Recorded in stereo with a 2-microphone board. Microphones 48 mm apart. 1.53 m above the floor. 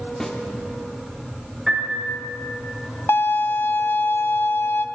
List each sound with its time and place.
0.2 s a snare drum: 15° left (ahead or behind), 1.2 m
1.7 s a piano: 5° right (ahead or behind), 5.5 m
3.1 s a violin: 60° left (ahead or behind), 0.5 m